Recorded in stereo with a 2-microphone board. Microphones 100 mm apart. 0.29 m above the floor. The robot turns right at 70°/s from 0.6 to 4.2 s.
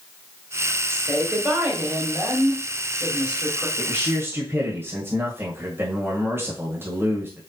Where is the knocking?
I don't hear knocking.